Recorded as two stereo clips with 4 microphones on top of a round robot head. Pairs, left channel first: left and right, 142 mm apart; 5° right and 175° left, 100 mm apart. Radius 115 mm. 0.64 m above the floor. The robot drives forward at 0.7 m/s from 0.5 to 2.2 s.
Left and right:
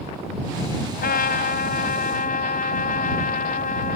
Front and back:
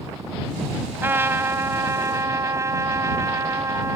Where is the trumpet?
105° left; by 4.0 s 115° left.